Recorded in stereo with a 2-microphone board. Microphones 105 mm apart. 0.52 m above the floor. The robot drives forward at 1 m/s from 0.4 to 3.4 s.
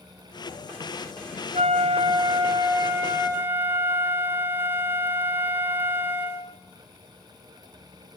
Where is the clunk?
No clunk in this recording.